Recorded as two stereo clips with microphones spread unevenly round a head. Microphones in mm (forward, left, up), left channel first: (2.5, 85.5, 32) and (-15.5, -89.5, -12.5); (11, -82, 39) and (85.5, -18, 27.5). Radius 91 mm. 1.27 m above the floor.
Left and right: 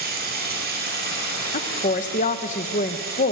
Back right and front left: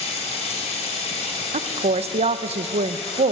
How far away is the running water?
About 4.5 m.